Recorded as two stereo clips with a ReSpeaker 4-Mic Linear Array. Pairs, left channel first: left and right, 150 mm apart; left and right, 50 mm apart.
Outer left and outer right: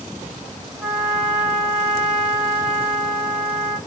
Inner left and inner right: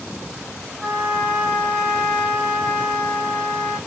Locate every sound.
0.8 s a trumpet: 5° right (ahead or behind), 3 m